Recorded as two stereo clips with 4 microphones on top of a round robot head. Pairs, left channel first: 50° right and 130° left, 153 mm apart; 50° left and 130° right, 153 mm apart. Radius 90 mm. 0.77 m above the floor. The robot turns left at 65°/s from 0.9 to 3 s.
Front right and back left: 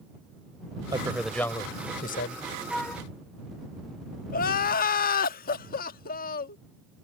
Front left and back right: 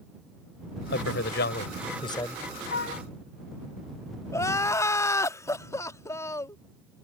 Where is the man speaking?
65° left; by 2.4 s 35° right.